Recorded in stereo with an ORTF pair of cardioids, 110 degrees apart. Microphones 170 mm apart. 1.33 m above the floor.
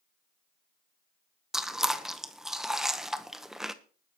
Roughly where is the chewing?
Ahead.